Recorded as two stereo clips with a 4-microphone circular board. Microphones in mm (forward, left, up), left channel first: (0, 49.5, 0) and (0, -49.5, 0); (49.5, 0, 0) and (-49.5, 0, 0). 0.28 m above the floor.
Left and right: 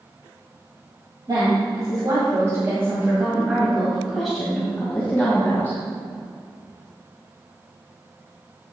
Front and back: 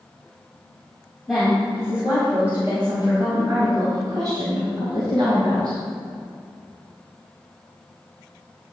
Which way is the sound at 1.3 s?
95° right.